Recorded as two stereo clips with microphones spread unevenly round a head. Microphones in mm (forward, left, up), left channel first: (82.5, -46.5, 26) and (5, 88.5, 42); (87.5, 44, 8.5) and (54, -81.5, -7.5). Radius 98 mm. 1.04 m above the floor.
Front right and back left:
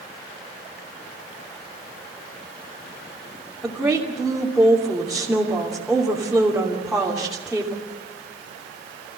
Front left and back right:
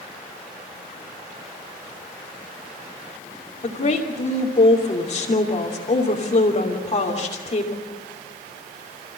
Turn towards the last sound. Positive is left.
turn(degrees=35)